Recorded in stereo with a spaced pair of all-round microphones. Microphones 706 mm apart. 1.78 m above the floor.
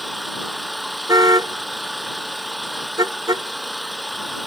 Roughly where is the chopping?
No chopping in this recording.